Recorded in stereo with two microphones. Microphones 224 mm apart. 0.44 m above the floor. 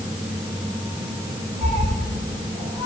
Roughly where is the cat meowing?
Right.